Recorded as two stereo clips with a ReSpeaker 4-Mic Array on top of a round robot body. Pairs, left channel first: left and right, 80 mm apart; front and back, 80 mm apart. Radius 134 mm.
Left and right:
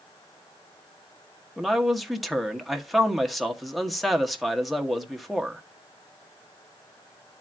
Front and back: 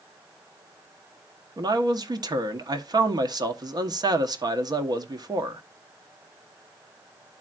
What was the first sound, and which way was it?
A man speaking, straight behind.